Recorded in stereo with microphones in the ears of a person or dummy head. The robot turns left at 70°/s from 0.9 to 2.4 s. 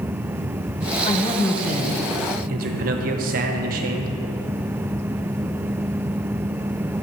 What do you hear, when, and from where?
1.0 s a man speaking: 40° left, 1.1 m; by 4.1 s 55° right, 1.1 m